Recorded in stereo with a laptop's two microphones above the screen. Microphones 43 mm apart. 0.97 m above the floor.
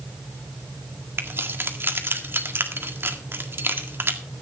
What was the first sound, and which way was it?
Keys jangling, 60° right (ahead or behind).